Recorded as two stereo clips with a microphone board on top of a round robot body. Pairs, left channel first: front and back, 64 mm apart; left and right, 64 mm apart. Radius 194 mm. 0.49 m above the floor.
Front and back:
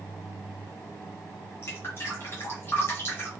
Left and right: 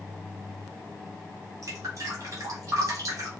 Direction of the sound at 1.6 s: 50° right.